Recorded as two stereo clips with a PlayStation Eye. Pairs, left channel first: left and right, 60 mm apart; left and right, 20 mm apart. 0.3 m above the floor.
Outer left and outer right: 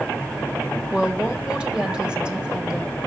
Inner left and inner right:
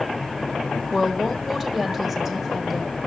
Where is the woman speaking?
15° right (ahead or behind), 1.2 m.